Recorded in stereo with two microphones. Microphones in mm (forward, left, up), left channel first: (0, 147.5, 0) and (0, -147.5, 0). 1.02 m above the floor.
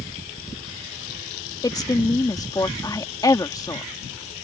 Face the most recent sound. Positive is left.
turn(degrees=10)  # may be behind; listen again after turning